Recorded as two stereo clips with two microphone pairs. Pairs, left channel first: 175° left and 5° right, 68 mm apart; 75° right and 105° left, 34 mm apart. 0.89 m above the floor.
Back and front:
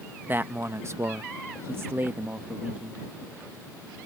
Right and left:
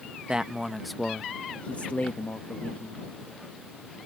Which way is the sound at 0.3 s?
50° left.